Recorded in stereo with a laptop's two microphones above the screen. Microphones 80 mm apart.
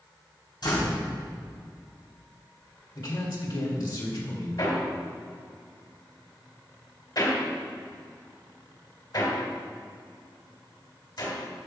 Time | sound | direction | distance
0.6 | a door slam | 60° left (ahead or behind) | 4 m
3.0 | a man speaking | 55° left (ahead or behind) | 2.5 m
4.6 | hammering | 55° left (ahead or behind) | 2.5 m